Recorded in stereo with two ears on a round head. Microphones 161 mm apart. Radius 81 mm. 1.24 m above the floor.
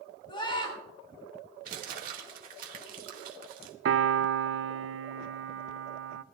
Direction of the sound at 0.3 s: 25° left (ahead or behind).